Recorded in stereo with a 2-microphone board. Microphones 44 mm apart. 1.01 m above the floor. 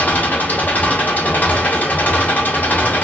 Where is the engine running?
45° left (ahead or behind), 0.8 m.